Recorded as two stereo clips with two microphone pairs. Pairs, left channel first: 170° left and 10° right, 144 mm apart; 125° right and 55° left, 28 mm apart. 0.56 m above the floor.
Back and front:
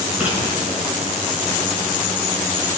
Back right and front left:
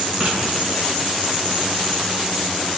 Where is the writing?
70° left, 3.5 m.